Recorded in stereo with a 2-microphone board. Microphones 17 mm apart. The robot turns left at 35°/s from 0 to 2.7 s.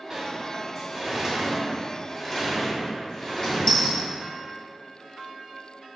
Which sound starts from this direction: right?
A sliding door, at 0.1 s.